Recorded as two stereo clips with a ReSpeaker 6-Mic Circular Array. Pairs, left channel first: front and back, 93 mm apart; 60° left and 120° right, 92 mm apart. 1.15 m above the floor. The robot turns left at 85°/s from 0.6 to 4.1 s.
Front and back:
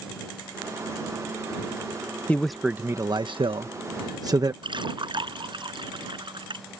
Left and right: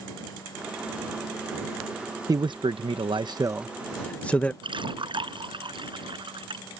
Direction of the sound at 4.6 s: 150° right.